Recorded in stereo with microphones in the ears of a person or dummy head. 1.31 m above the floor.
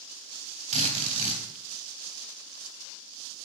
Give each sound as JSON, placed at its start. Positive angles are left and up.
{"t": 0.7, "sound": "a drill", "side_deg": -35, "distance_m": 3.5}